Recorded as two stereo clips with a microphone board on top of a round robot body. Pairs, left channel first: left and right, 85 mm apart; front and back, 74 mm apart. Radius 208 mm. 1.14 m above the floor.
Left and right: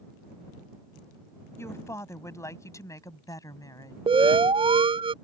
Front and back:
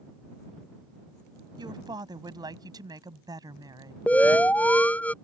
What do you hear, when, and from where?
1.6 s a woman speaking: 150° left; by 4.0 s 140° left
4.1 s an alarm: 70° right